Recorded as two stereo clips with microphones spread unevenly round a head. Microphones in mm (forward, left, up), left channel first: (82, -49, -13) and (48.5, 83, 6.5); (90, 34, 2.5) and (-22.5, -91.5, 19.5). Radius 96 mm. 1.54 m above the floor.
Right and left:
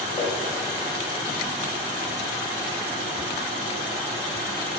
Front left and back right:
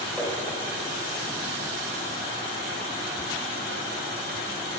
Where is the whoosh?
40° right, 1.7 m.